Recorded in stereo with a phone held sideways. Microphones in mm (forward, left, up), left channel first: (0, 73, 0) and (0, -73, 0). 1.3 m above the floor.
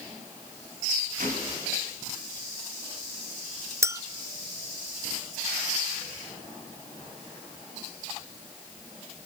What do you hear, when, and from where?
1.2 s a gunshot: 75° right (ahead or behind), 4.5 m
3.8 s a clink: 20° right (ahead or behind), 0.7 m